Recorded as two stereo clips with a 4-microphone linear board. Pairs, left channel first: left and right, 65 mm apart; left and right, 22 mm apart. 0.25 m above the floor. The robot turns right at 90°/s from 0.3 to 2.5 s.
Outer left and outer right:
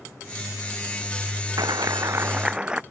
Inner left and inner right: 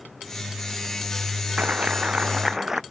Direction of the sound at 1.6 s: 100° right.